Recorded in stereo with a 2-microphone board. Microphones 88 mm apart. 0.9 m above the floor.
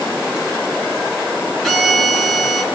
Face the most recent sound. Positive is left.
turn(degrees=0)  # may be behind; listen again after turning